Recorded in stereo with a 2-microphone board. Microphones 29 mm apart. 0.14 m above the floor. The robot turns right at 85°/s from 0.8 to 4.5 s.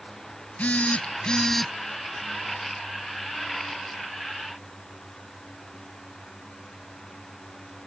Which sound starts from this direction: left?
A phone buzzing, at 0.6 s.